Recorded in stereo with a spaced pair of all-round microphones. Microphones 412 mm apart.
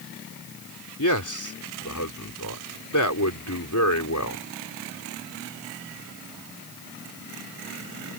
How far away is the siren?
I don't hear a siren.